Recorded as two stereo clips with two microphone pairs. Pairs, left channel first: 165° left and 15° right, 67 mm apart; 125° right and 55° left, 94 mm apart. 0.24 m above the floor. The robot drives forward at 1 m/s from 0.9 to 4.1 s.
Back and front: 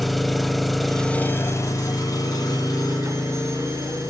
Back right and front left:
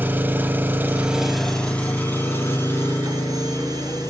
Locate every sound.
0.0 s an engine running: 80° left, 0.7 m; by 4.1 s 175° left, 3 m